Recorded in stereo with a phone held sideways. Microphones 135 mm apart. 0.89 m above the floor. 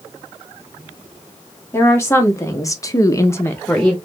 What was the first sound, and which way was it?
A woman speaking, 20° left (ahead or behind).